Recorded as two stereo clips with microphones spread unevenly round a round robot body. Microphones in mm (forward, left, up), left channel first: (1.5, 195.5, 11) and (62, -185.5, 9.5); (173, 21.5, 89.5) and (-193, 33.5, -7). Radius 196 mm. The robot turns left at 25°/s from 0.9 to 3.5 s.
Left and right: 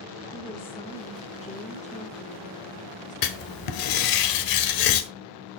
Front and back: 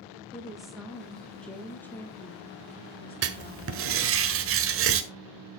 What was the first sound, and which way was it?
A woman speaking, 140° left.